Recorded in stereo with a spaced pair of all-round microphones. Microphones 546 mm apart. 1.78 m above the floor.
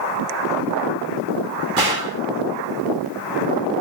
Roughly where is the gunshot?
Right.